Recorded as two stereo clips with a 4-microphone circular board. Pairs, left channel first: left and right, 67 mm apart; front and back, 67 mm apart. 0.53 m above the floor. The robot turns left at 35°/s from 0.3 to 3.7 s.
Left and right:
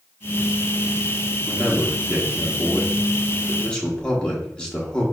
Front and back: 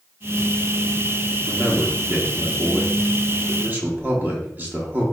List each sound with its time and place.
1.5 s a man speaking: 130° right, 0.7 m; by 5.0 s 150° left, 0.7 m